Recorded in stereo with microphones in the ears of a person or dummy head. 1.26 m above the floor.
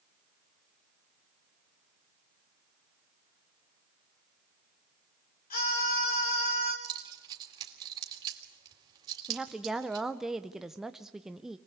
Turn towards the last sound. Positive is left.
turn(degrees=-5)  # may be behind; listen again after turning